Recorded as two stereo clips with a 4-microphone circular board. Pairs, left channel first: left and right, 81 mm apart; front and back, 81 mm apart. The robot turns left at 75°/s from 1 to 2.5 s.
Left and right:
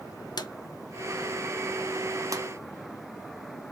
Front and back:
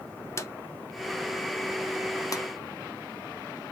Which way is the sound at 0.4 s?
55° left.